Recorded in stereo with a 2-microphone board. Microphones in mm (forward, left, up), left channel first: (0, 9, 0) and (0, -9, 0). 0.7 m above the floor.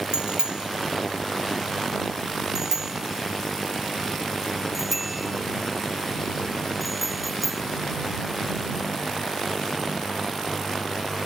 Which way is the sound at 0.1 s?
55° right (ahead or behind).